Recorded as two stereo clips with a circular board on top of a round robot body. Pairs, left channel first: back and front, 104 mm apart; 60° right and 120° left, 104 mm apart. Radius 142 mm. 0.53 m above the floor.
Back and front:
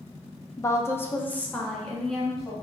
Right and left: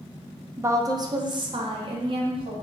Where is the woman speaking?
160° left, 0.7 m; by 2.5 s 90° left, 1.3 m.